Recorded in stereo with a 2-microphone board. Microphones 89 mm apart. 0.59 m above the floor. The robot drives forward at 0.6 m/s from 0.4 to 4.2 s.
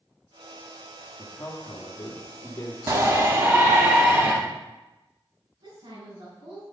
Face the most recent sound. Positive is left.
turn(degrees=-75)  # may be behind; listen again after turning